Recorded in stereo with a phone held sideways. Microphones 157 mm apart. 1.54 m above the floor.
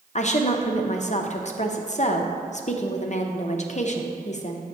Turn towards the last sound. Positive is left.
turn(degrees=50)  # may be behind; listen again after turning